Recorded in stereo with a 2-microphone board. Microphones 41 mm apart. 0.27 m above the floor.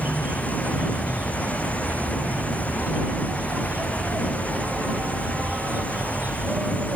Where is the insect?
50° right (ahead or behind).